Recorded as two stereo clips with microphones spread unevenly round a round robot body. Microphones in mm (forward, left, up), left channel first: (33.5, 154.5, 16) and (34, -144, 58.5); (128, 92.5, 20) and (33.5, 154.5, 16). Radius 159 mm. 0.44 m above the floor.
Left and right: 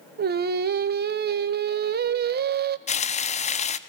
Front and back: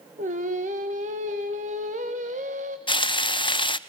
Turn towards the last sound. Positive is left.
turn(degrees=20)